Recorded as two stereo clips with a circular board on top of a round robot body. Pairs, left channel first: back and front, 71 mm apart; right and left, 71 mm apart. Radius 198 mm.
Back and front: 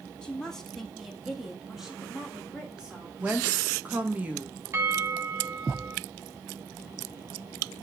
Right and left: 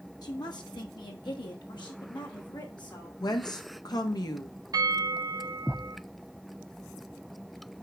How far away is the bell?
About 2.5 m.